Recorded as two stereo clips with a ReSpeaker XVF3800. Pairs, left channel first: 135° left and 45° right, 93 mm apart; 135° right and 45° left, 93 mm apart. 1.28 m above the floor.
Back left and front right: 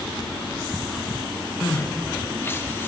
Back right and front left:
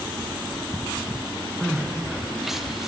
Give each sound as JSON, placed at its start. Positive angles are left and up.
{"t": 1.6, "sound": "crying", "azimuth_deg": 125, "distance_m": 0.6}